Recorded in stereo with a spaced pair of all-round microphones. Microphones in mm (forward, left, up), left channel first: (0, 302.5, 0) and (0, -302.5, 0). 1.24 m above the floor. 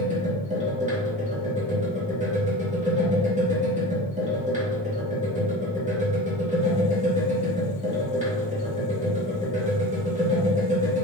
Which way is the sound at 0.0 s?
10° right (ahead or behind).